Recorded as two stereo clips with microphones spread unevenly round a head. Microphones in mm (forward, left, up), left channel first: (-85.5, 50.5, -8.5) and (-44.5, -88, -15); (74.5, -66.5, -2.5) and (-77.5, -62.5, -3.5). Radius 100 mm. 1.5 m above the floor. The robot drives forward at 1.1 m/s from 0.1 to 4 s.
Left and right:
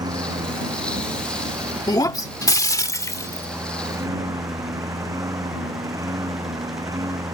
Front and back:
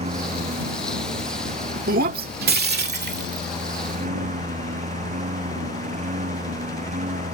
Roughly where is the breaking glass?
Behind.